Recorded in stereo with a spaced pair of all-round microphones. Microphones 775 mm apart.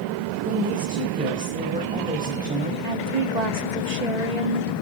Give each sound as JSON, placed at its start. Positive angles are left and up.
{"t": 0.5, "sound": "a woman speaking", "side_deg": -10, "distance_m": 5.5}
{"t": 2.8, "sound": "a woman speaking", "side_deg": -55, "distance_m": 2.0}